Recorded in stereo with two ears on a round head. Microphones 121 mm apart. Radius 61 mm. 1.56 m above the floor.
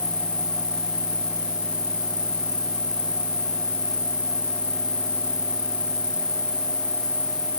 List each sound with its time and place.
0.0 s an insect: 10° left (ahead or behind)